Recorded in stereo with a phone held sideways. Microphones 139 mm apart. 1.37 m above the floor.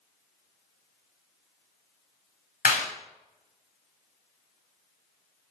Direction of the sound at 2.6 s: 80° left.